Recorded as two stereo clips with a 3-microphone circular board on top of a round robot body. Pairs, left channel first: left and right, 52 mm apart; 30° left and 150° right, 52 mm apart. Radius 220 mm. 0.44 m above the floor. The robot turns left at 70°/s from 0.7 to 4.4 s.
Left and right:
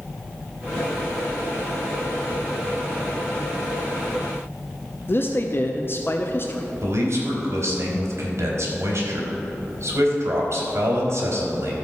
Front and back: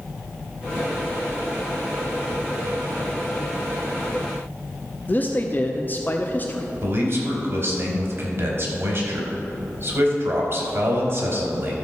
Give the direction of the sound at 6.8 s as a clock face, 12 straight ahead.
4 o'clock.